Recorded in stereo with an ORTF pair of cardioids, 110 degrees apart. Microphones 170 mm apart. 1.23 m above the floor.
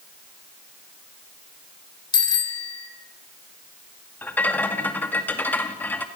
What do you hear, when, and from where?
2.1 s a bicycle bell: 25° left, 3.5 m
4.2 s a rattle: 10° left, 2.5 m